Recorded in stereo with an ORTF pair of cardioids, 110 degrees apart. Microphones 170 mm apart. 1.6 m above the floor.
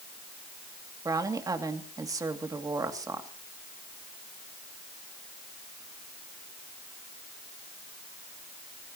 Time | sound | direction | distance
1.1 | a woman speaking | 20° right | 2.5 m